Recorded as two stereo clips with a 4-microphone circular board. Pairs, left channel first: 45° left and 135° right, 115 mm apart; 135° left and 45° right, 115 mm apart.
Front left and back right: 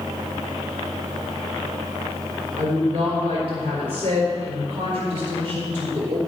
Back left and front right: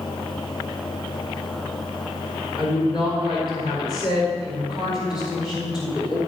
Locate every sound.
2.6 s a woman speaking: 175° right, 4 m